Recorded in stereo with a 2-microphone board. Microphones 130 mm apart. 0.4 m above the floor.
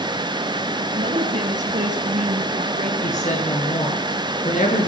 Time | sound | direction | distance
0.9 | a woman speaking | 80° right | 4.5 m
3.0 | a woman speaking | 75° left (ahead or behind) | 5.5 m